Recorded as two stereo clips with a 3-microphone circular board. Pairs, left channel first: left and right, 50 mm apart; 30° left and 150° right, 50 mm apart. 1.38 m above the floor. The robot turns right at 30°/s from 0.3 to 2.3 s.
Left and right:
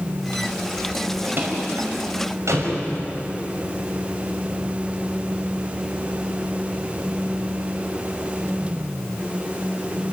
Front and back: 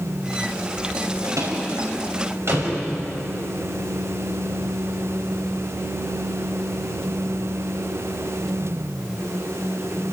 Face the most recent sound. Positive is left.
turn(degrees=-115)